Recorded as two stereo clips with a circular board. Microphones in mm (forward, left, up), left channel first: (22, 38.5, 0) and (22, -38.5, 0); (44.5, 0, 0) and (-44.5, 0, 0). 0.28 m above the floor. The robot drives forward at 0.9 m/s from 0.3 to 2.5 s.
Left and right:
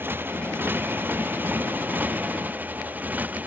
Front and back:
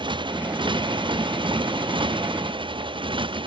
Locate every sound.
0.0 s a motorcycle: 155° right; by 3.5 s 160° right